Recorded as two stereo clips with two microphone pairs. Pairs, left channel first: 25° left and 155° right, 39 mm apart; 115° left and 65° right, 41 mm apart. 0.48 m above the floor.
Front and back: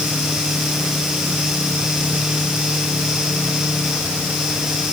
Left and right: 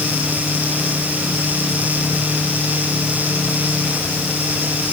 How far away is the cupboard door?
No cupboard door in this recording.